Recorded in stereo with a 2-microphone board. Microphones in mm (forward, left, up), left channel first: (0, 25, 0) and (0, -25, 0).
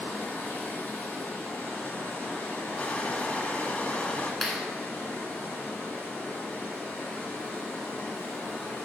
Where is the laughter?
No laughter in this recording.